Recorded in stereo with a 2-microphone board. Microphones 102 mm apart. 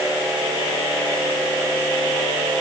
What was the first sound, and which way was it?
Only background noise.